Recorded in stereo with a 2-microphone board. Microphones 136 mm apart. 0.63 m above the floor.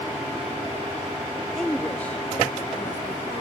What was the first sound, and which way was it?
A woman speaking, 5° left (ahead or behind).